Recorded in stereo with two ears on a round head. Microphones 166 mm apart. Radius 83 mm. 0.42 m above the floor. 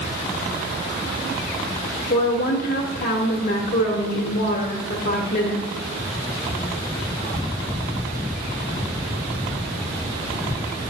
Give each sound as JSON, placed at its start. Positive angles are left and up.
{"t": 2.1, "sound": "a woman speaking", "side_deg": 50, "distance_m": 1.3}